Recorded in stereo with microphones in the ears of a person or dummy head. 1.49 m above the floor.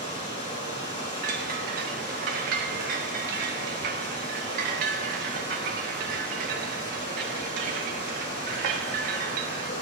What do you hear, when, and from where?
0.0 s running water: 30° left (ahead or behind), 5 m
1.2 s a chime: 50° right (ahead or behind), 1.3 m